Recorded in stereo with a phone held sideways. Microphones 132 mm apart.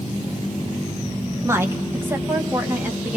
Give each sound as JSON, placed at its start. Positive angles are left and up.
{"t": 1.4, "sound": "a woman speaking", "side_deg": -20, "distance_m": 1.6}